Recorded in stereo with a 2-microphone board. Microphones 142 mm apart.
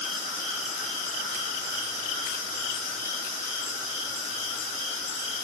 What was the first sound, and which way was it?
Only background noise.